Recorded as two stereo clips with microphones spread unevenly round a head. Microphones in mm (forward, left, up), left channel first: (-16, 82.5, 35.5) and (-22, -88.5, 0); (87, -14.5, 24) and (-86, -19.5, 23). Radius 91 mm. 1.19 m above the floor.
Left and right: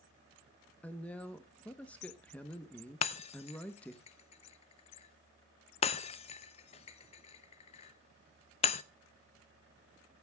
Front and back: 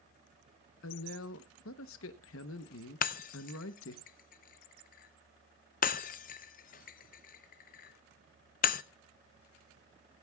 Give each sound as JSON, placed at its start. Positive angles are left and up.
{"t": 0.8, "sound": "a woman speaking", "azimuth_deg": 5, "distance_m": 0.9}
{"t": 3.0, "sound": "breaking glass", "azimuth_deg": 40, "distance_m": 0.5}